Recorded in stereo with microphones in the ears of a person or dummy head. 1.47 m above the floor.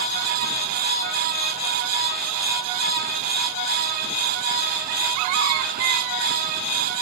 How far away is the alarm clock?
No alarm clock in this recording.